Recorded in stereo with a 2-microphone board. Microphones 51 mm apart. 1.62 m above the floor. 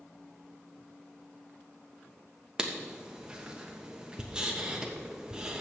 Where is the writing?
15° right (ahead or behind), 1.1 m.